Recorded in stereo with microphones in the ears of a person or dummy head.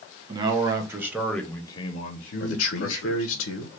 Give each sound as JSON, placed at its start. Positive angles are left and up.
{"t": 0.3, "sound": "a man speaking", "side_deg": -30, "distance_m": 0.9}
{"t": 2.4, "sound": "a man speaking", "side_deg": 80, "distance_m": 0.7}